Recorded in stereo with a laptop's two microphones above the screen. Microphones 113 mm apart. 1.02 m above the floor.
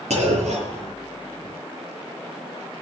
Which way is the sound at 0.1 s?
85° right.